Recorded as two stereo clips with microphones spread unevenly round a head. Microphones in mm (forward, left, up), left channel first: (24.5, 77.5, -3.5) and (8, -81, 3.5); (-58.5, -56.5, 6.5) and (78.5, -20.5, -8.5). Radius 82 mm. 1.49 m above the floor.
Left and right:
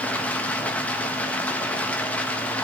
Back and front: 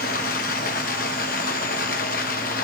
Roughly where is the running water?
Behind.